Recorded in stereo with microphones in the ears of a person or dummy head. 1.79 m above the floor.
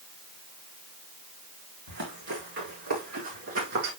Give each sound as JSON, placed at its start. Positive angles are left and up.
{"t": 1.9, "sound": "running footsteps", "side_deg": -65, "distance_m": 4.5}